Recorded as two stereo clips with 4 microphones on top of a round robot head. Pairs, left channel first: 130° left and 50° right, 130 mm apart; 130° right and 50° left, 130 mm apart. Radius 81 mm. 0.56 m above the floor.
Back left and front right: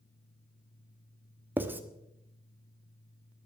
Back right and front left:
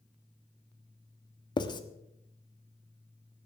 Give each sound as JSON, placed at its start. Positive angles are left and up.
{"t": 1.6, "sound": "writing", "azimuth_deg": -115, "distance_m": 1.4}